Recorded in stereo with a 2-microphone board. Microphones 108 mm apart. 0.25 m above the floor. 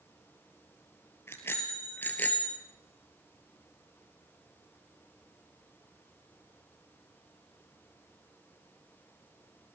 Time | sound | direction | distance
1.3 | a bicycle bell | 20° left (ahead or behind) | 3.5 m